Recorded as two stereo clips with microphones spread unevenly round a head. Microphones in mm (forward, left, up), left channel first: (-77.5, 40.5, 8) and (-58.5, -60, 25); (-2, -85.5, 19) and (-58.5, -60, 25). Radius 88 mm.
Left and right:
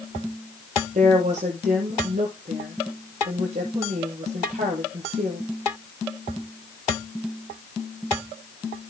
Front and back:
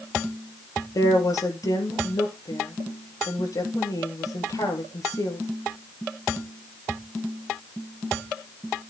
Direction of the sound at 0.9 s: 45° right.